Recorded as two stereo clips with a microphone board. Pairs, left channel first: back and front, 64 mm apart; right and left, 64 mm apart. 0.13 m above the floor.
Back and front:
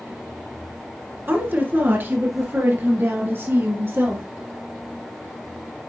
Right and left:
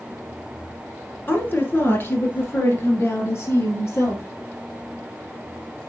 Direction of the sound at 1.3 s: 45° right.